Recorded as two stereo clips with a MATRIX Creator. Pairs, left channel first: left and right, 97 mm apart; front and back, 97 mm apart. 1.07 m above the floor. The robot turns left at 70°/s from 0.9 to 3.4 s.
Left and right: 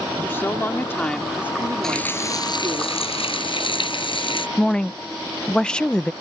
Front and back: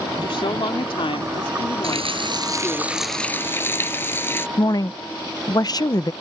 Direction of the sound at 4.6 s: 15° left.